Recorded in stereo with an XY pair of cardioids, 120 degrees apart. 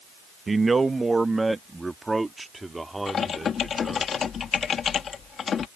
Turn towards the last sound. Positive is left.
turn(degrees=45)